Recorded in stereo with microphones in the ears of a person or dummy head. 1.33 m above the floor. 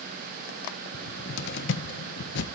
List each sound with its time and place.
0.9 s a cupboard door: 65° left (ahead or behind), 1.2 m